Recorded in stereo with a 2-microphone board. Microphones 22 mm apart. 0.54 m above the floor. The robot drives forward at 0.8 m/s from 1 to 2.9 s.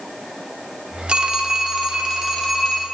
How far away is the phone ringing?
About 0.6 m.